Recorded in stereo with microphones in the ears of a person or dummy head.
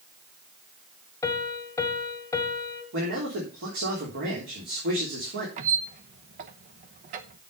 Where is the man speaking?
65° right (ahead or behind), 3.5 m.